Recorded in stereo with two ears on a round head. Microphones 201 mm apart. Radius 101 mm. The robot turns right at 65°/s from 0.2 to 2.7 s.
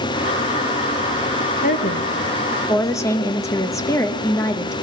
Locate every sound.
1.6 s a woman speaking: 90° left, 1.0 m; by 4.7 s 160° left, 1.0 m